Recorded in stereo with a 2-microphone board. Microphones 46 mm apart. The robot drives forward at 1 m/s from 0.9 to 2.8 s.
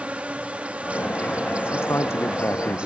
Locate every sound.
0.0 s an insect: 30° right (ahead or behind); by 2.9 s 25° right (ahead or behind)
1.6 s a man speaking: 65° left (ahead or behind); by 2.9 s 70° left (ahead or behind)